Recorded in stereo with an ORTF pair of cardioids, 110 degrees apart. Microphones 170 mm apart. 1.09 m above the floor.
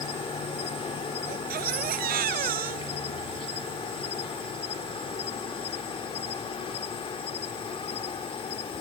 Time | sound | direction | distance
0.0 | an insect | 35° left | ?
1.3 | a baby crying | 60° right | ?